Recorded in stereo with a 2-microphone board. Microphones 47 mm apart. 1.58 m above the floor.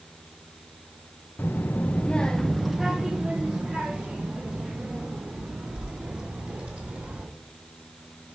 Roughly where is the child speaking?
Left.